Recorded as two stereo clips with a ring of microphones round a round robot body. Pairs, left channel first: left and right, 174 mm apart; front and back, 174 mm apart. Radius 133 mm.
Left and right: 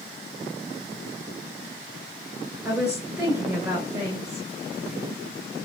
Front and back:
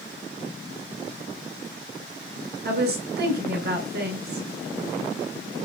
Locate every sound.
2.6 s a woman speaking: 175° right, 2.5 m